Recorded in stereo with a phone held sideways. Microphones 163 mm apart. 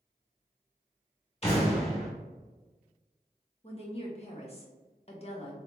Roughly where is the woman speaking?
Left.